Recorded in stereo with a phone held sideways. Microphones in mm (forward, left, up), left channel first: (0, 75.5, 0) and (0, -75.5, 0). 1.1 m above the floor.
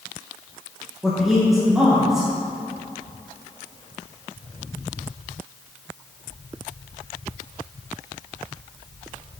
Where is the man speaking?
Centre (ahead or behind), 1.3 m.